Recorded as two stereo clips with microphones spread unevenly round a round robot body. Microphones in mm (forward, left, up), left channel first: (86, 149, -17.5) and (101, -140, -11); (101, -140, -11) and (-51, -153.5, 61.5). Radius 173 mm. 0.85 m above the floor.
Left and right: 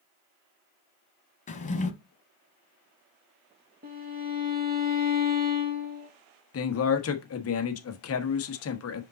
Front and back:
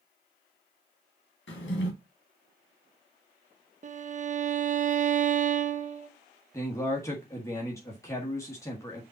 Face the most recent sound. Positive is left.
turn(degrees=60)